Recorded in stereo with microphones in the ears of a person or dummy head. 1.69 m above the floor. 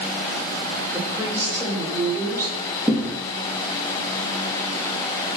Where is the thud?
Centre (ahead or behind), 7 m.